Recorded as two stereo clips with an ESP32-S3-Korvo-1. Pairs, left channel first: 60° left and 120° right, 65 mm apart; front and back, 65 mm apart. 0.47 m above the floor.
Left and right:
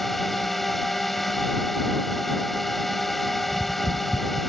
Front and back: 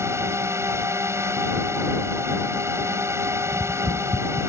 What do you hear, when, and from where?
0.0 s a drone: 145° left
3.5 s tapping: 155° left